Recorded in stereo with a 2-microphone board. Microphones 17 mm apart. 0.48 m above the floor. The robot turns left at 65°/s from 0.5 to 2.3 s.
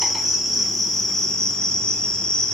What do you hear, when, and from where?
0.0 s an insect: 155° right, 0.8 m; by 2.5 s 90° left, 0.8 m